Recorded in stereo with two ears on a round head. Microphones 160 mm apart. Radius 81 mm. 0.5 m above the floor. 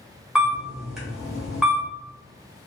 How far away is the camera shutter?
About 1.7 m.